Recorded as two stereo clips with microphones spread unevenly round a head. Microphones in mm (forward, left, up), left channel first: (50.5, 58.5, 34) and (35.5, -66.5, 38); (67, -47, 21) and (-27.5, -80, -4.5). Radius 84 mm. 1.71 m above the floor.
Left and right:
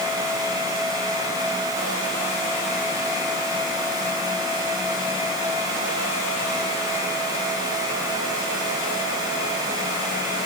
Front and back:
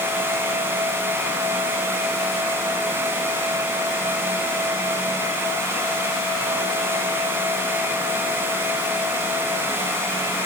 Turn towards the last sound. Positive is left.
No sound to turn to.